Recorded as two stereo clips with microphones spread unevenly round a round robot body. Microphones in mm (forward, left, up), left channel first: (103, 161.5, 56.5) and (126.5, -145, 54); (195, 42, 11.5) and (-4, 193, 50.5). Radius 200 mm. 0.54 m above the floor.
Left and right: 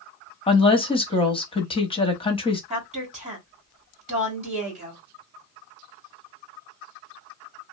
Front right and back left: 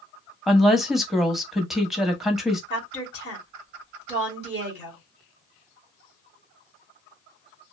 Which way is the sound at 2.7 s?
145° right.